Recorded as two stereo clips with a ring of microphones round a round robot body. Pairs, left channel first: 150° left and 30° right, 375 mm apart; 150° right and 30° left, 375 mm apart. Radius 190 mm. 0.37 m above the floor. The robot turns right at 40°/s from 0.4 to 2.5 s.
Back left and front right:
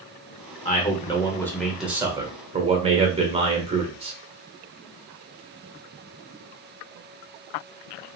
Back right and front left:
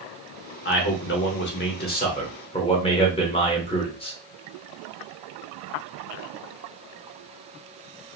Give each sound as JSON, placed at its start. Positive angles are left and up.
{"t": 0.7, "sound": "a man speaking", "azimuth_deg": -165, "distance_m": 0.9}